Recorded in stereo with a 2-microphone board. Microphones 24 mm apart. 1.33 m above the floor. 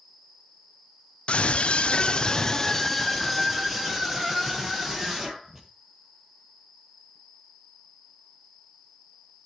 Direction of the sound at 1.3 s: 60° left (ahead or behind).